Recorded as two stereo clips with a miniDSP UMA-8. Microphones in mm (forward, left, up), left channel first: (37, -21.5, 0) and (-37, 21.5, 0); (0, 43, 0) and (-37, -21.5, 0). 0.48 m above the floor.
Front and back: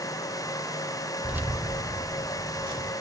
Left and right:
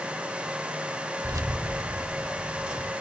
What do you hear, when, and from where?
1.2 s keys jangling: 130° right, 0.9 m; by 2.9 s 165° left, 2.5 m